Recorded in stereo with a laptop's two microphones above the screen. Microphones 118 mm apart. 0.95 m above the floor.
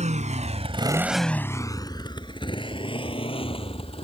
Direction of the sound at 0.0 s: 85° right.